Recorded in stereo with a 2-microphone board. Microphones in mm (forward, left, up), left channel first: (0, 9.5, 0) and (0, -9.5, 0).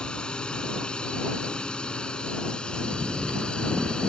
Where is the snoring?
75° right (ahead or behind).